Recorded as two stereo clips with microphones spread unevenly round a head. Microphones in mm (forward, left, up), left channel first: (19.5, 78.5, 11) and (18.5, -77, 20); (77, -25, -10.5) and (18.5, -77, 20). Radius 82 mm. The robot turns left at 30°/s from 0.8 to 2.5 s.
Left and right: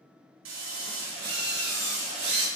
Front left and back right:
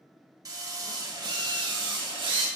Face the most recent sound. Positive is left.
turn(degrees=-150)